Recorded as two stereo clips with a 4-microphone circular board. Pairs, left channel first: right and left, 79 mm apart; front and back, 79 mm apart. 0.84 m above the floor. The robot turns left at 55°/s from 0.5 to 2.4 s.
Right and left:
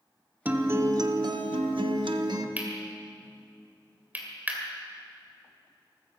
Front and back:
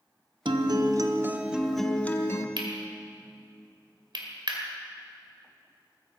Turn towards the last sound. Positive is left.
turn(degrees=160)